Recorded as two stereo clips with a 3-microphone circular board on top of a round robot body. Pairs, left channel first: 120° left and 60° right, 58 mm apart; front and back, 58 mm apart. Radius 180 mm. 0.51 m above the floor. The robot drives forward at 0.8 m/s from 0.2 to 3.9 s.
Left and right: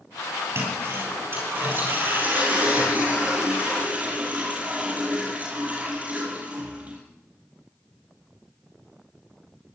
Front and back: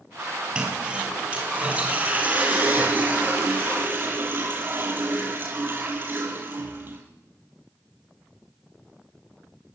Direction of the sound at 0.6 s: 110° right.